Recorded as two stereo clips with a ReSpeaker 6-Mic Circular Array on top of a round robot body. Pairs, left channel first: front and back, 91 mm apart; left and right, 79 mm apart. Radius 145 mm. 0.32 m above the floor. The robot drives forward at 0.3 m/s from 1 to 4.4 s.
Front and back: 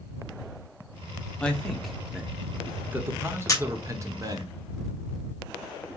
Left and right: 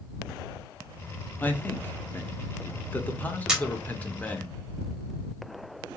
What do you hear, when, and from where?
1.4 s a man speaking: 65° left, 1.0 m; by 4.5 s 155° left, 1.2 m
3.5 s a camera shutter: 15° right, 1.6 m; by 3.6 s 20° right, 1.5 m